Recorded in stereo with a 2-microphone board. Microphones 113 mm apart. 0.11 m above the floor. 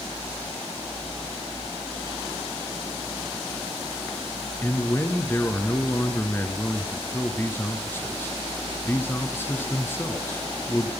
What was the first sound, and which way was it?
A man speaking, 20° left (ahead or behind).